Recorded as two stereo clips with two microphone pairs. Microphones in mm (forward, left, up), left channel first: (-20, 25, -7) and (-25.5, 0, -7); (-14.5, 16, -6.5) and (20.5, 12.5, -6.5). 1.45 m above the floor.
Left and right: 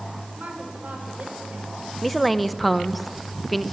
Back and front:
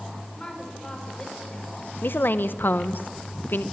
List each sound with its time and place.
0.4 s a woman speaking: 120° right, 5 m
2.0 s a woman speaking: 170° left, 0.8 m